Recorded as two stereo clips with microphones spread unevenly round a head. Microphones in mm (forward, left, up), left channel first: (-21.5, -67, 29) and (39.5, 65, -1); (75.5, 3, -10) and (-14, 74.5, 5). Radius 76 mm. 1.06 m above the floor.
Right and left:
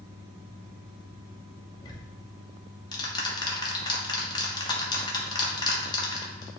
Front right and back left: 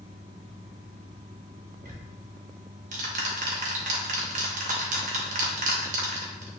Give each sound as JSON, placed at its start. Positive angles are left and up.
{"t": 1.8, "sound": "ticking", "azimuth_deg": 175, "distance_m": 1.2}